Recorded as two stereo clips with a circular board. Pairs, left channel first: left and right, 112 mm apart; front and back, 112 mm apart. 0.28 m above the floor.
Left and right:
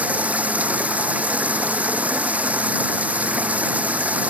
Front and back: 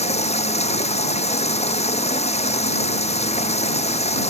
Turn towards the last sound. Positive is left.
turn(degrees=-15)